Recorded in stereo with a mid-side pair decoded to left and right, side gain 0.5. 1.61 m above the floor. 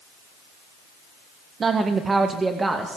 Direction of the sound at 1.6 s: 40° right.